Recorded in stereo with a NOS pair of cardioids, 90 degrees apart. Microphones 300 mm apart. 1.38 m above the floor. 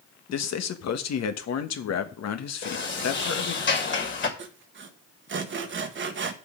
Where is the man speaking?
60° left, 1.3 m.